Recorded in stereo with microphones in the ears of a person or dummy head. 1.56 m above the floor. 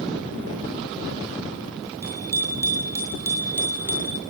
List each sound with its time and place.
2.0 s a bicycle bell: 20° right (ahead or behind), 8 m; by 4.2 s 10° right (ahead or behind), 5 m